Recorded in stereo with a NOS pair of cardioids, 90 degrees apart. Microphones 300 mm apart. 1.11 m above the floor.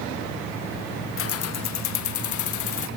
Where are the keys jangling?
45° left, 0.9 m; by 2.9 s 80° left, 2.5 m.